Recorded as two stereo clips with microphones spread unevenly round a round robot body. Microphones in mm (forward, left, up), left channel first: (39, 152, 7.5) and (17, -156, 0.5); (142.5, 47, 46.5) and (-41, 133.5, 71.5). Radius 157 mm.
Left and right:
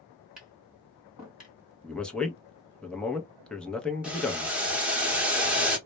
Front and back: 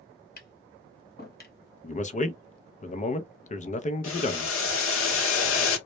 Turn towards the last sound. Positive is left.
turn(degrees=-10)